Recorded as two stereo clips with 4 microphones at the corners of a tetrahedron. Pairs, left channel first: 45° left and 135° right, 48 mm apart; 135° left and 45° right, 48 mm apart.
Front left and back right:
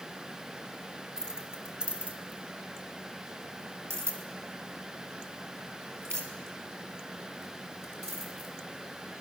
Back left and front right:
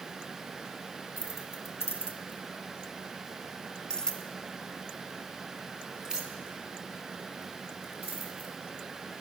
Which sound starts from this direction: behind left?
Keys jangling, at 1.2 s.